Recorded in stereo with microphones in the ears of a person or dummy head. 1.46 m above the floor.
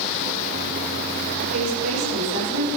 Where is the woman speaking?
85° right, 7 m.